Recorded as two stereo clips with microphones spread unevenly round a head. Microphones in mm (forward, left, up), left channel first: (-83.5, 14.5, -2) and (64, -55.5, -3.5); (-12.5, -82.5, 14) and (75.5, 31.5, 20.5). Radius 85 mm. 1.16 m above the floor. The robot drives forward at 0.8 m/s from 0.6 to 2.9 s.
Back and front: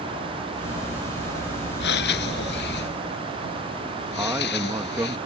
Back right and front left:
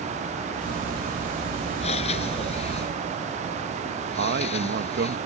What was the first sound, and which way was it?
Breathing, 175° left.